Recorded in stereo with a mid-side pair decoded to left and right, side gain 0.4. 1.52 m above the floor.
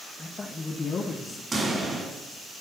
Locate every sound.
0.2 s a man speaking: 30° left, 1.3 m; by 1.4 s 65° left, 1.1 m
1.5 s a pop: 30° right, 3.5 m